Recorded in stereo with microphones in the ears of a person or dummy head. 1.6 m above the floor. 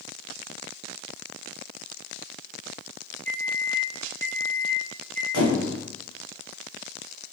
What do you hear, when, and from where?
3.2 s a microwave: 50° right (ahead or behind), 1.0 m
5.3 s a squeak: 70° right (ahead or behind), 1.4 m